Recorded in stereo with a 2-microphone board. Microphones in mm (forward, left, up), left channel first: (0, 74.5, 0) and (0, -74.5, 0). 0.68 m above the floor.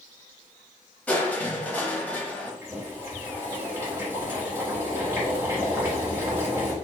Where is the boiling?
15° right (ahead or behind), 1.4 m.